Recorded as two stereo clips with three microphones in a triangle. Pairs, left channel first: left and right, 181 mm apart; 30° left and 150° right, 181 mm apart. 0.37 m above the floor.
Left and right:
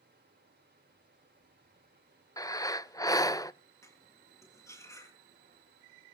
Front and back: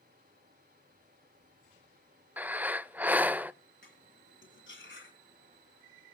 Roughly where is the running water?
Behind right.